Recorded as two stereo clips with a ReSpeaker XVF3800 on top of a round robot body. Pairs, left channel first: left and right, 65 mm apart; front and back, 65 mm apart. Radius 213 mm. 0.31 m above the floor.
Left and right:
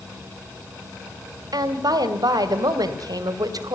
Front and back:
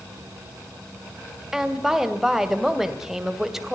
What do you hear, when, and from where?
1.5 s a woman speaking: 95° right, 2.5 m